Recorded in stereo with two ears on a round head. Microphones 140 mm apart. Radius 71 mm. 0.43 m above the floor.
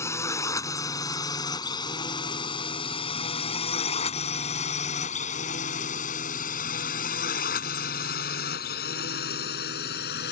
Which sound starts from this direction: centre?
A drone, at 0.0 s.